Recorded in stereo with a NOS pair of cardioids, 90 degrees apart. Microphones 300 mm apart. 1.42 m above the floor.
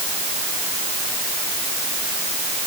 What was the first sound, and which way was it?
Only background noise.